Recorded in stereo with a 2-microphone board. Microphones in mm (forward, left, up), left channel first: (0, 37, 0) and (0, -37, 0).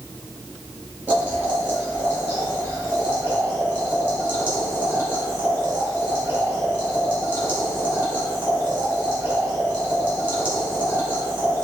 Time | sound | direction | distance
1.1 | boiling | 25° right (ahead or behind) | 2 m